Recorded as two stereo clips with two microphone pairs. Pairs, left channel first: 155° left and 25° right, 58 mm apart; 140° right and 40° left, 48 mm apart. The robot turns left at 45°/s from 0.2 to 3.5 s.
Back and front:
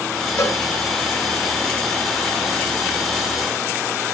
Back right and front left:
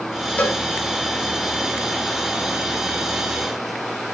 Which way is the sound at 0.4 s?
175° left.